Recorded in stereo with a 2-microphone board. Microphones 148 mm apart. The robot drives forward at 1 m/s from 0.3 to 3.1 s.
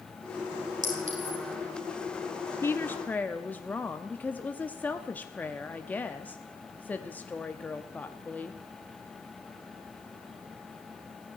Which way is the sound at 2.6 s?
15° left (ahead or behind).